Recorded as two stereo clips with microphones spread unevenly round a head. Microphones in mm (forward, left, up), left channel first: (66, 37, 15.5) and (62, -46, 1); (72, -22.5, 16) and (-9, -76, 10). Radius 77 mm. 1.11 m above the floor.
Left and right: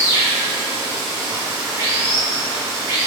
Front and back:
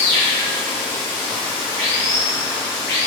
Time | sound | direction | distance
0.0 | running water | 35° right | 1.1 m